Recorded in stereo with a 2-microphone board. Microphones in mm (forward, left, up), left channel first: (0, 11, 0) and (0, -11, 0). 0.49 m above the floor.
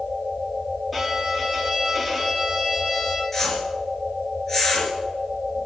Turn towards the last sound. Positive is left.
turn(degrees=15)  # may be behind; listen again after turning